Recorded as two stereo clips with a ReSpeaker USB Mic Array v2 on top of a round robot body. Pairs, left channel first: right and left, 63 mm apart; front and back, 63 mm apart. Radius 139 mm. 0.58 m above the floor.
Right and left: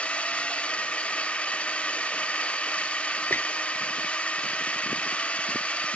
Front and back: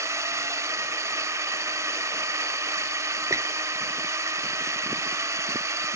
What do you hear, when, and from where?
0.0 s a drone: 155° right
3.3 s a squeak: 145° right